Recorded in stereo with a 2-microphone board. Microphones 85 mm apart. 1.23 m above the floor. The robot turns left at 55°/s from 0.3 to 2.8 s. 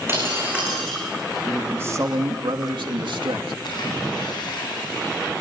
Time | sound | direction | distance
0.1 | breaking glass | 150° right | 8 m
1.4 | a man speaking | 15° right | 2.5 m
3.6 | a splash | 60° left (ahead or behind) | 9 m